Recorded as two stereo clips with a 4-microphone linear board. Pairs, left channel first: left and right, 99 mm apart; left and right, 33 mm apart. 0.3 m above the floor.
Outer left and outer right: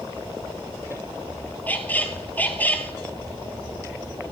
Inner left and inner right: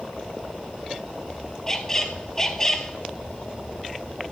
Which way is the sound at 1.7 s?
15° left (ahead or behind).